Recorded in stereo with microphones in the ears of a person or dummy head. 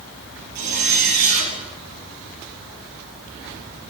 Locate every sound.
0.6 s a zipper: 60° right (ahead or behind), 6.5 m